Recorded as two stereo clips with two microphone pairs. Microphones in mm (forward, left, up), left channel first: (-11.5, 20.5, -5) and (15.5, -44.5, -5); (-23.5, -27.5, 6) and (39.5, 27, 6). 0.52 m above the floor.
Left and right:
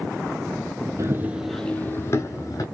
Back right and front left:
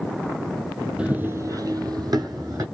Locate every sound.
1.0 s running footsteps: 35° right, 0.8 m; by 2.6 s 80° left, 1.4 m